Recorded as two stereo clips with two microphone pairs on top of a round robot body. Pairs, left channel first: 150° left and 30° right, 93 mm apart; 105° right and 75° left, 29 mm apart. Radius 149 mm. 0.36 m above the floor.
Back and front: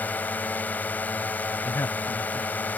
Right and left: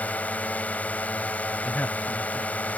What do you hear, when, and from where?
0.0 s a drone: 140° right
1.6 s a man speaking: 145° right